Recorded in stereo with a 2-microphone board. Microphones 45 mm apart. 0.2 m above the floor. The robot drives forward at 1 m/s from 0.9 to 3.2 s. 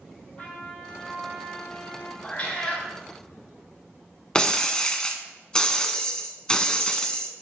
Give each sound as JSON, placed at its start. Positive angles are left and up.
{"t": 0.4, "sound": "a trumpet", "side_deg": 25, "distance_m": 3.5}
{"t": 2.2, "sound": "a cat meowing", "side_deg": 30, "distance_m": 1.6}
{"t": 4.3, "sound": "breaking glass", "side_deg": 20, "distance_m": 0.7}